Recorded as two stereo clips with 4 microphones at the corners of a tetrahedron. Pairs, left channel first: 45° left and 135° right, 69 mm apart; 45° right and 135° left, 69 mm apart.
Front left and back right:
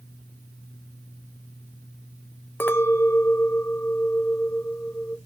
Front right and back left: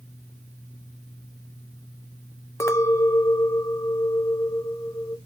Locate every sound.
2.6 s a clink: 10° right, 0.6 m